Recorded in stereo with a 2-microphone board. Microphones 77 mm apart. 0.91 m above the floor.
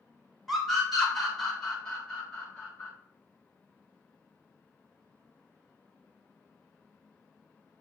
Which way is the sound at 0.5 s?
Centre (ahead or behind).